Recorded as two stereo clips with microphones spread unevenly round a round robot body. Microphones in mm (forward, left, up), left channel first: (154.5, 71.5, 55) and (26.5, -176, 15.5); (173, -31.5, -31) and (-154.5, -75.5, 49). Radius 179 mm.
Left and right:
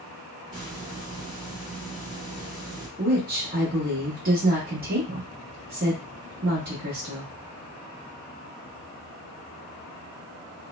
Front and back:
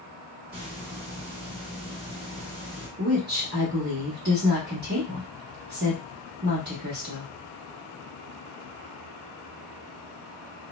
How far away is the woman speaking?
About 0.9 m.